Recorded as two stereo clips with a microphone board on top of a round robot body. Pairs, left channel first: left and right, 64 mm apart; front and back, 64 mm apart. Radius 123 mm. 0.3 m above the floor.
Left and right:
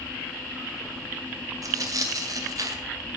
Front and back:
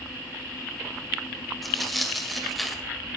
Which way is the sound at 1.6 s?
90° right.